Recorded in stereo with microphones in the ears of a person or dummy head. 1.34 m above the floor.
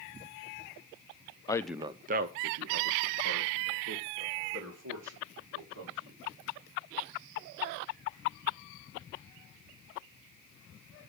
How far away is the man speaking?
About 0.6 m.